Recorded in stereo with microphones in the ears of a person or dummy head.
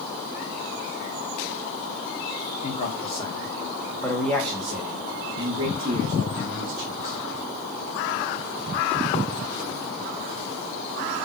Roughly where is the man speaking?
Left.